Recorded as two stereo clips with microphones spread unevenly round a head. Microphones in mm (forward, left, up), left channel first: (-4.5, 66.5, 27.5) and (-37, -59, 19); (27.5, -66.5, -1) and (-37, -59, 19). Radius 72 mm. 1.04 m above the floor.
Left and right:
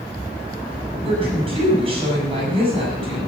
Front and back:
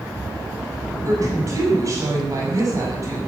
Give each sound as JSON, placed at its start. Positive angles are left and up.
{"t": 1.0, "sound": "a woman speaking", "azimuth_deg": -155, "distance_m": 7.5}